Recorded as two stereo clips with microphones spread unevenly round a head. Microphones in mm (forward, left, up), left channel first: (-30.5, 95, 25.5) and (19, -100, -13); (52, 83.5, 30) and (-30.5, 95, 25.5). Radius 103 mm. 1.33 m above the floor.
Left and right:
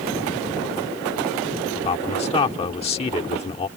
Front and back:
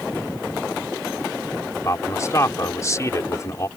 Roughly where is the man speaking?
Ahead left.